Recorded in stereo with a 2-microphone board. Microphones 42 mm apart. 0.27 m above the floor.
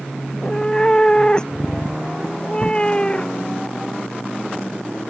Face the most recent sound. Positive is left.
turn(degrees=25)  # may be behind; listen again after turning